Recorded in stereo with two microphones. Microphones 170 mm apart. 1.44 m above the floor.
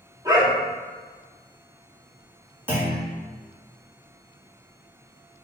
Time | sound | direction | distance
0.2 | a dog barking | 25° right (ahead or behind) | 1.0 m
2.7 | a clunk | 10° right (ahead or behind) | 1.8 m